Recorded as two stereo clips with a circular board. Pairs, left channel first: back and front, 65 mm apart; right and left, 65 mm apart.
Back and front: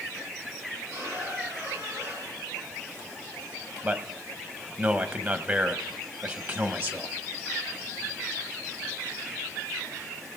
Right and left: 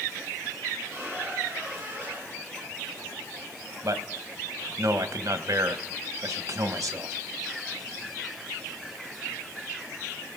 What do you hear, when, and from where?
0.9 s a squeak: 40° left, 7 m
3.8 s a man speaking: 60° left, 1.1 m